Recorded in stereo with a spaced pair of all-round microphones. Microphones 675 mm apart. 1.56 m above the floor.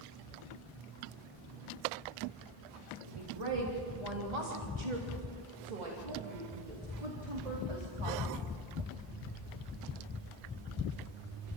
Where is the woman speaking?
45° right (ahead or behind), 4.5 m; by 8.5 s 40° right (ahead or behind), 4.5 m.